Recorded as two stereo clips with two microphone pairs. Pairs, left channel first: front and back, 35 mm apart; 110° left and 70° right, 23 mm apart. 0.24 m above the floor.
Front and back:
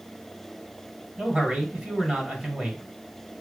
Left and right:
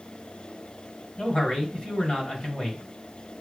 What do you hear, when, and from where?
1.2 s a man speaking: 120° left, 2 m